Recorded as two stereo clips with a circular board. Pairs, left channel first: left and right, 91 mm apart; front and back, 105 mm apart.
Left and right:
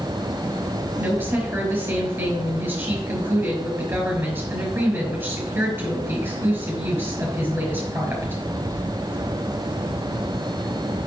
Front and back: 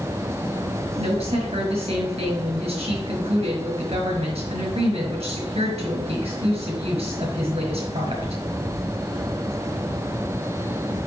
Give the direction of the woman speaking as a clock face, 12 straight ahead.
5 o'clock.